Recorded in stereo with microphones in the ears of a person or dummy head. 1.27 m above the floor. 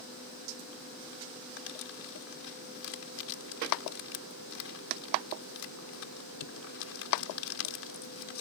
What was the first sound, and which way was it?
Crumpling, 80° left.